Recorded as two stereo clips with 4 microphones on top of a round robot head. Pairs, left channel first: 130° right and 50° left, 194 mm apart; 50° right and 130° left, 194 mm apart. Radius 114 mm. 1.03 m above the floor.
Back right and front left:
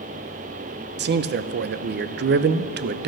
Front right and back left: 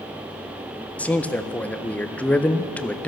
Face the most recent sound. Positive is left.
turn(degrees=30)